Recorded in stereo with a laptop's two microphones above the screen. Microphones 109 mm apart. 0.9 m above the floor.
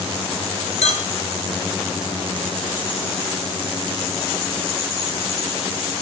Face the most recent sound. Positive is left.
turn(degrees=85)